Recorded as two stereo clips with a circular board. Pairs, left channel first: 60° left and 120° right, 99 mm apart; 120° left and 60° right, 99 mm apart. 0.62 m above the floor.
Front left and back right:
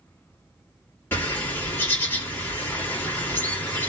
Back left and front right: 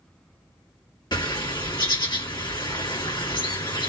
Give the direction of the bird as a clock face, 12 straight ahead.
8 o'clock.